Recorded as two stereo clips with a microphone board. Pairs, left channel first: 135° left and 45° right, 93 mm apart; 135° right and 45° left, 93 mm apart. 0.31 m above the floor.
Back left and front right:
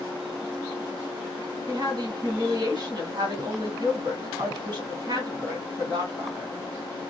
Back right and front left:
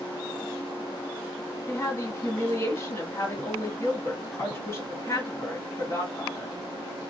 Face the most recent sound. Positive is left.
turn(degrees=-75)